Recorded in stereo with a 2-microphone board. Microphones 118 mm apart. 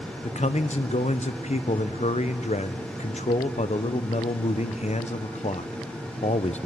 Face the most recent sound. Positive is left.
turn(degrees=75)  # may be behind; listen again after turning